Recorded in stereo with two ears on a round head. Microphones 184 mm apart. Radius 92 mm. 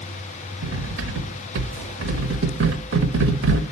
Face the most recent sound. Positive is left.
turn(degrees=-65)  # may be behind; listen again after turning